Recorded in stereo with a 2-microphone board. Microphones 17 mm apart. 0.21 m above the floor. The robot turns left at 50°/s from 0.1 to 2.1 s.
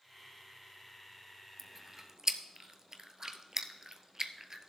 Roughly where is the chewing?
Centre.